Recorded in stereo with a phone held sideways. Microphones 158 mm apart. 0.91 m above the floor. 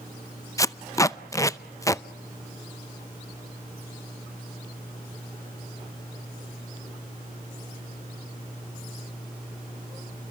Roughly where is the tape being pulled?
Left.